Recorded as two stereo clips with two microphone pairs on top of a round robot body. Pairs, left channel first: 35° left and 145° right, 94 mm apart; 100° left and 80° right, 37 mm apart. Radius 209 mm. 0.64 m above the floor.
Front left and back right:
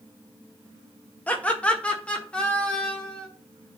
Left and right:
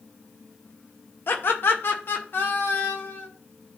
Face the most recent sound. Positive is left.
turn(degrees=120)